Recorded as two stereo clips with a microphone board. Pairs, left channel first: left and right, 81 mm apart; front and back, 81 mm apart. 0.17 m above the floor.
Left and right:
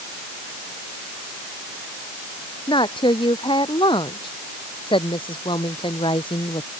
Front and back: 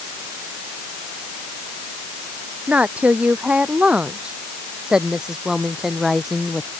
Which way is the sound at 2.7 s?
105° left.